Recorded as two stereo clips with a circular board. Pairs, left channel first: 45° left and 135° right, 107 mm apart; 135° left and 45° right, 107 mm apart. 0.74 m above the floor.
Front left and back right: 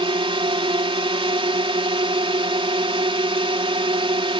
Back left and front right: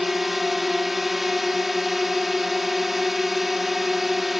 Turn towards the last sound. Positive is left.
turn(degrees=-135)